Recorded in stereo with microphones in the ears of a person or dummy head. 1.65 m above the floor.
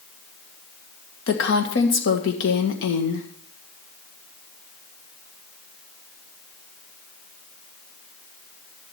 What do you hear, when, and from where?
1.3 s a woman speaking: 60° left (ahead or behind), 1.9 m